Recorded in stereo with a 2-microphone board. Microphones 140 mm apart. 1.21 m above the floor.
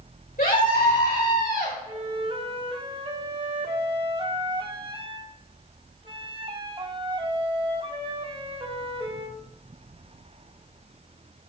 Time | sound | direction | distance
0.4 | a scream | 80° left | 5.5 m
1.9 | a flute | 35° right (ahead or behind) | 1.0 m